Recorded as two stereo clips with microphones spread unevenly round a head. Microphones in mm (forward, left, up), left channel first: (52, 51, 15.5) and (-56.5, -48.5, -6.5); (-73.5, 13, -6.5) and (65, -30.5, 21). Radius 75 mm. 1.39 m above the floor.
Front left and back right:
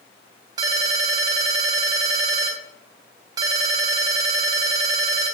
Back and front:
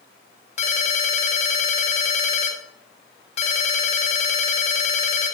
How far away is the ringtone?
About 0.9 m.